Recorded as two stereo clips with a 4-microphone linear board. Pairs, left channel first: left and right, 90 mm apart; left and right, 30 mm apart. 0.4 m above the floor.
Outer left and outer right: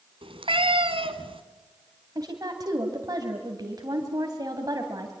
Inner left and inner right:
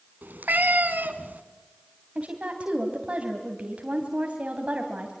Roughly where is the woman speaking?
Right.